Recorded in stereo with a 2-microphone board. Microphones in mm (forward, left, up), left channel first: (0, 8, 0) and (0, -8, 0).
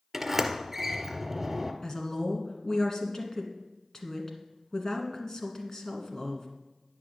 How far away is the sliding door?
About 1.3 m.